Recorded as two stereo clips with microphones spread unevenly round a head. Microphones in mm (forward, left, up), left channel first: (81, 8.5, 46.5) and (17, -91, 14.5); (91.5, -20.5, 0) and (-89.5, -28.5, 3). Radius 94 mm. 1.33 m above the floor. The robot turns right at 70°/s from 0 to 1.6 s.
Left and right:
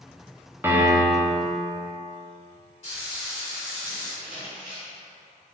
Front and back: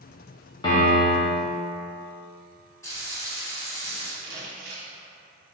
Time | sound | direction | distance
0.6 | a piano | 60° right | 0.9 m
2.8 | frying | 80° left | 1.7 m
4.2 | crumpling | 145° left | 1.1 m